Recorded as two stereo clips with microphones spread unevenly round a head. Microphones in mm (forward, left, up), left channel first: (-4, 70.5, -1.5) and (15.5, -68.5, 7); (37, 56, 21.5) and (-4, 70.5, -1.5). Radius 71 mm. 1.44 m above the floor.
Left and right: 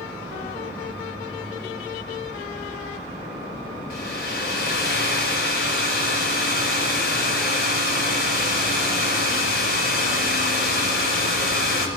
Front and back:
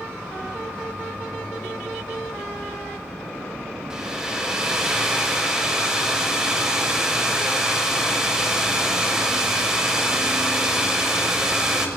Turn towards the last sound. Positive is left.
turn(degrees=80)